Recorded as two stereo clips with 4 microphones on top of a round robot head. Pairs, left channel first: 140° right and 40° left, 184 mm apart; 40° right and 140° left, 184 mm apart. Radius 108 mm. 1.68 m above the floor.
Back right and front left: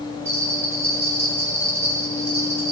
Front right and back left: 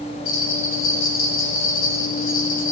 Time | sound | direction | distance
0.2 | a bell | 40° right | 2.5 m